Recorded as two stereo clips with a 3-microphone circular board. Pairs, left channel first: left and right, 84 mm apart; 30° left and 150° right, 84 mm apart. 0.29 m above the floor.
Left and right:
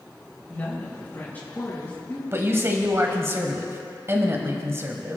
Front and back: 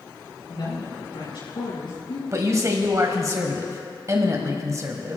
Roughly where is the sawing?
No sawing in this recording.